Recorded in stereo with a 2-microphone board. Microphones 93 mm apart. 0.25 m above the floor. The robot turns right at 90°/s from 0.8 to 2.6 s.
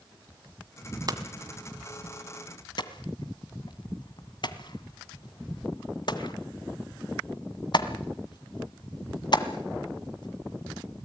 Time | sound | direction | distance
1.1 | hammering | 45° right (ahead or behind) | 1.6 m